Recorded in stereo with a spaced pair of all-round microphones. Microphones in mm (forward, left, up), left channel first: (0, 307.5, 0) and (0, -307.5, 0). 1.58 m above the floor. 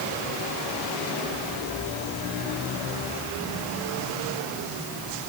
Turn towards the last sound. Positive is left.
No sound to turn to.